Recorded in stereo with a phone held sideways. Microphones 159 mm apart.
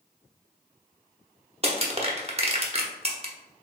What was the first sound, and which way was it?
Crushing, 40° right (ahead or behind).